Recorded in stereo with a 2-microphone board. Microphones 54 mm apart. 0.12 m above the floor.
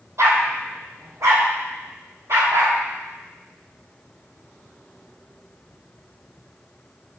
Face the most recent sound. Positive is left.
turn(degrees=-75)  # may be behind; listen again after turning